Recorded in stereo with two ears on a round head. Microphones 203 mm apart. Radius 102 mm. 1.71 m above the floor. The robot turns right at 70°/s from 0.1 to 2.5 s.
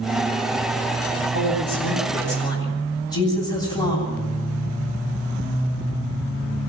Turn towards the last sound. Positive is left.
turn(degrees=160)